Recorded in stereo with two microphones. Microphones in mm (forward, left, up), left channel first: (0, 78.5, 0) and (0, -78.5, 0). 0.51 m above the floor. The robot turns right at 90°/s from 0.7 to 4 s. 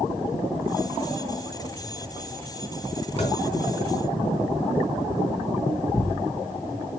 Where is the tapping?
45° left (ahead or behind), 3.5 m; by 3.4 s 25° left (ahead or behind), 3.5 m.